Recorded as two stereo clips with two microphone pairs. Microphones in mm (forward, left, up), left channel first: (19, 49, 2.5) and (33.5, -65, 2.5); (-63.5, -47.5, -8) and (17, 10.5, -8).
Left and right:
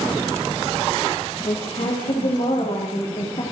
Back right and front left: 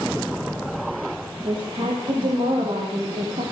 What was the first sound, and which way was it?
A woman speaking, 70° left.